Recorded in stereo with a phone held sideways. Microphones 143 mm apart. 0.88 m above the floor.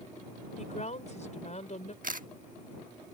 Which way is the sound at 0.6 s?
55° left (ahead or behind).